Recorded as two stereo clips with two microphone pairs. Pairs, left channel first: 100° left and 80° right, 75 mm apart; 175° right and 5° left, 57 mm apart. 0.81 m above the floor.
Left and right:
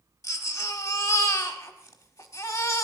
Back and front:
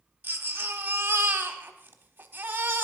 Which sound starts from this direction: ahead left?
A baby crying, at 0.2 s.